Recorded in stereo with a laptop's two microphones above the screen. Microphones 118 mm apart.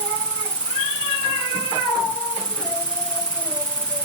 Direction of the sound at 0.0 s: 10° left (ahead or behind).